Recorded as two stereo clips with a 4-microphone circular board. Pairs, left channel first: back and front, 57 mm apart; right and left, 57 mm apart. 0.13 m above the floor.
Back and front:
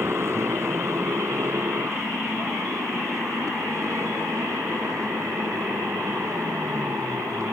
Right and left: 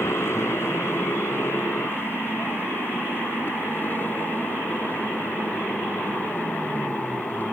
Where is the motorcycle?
45° right; by 7.5 s 30° right.